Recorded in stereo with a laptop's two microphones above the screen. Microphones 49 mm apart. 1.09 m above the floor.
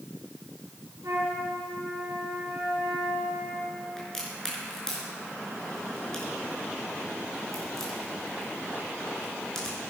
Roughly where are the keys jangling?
No keys jangling in this recording.